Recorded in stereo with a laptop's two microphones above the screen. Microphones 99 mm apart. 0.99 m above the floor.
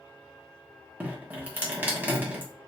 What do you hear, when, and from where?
1.0 s dripping: 20° right (ahead or behind), 0.8 m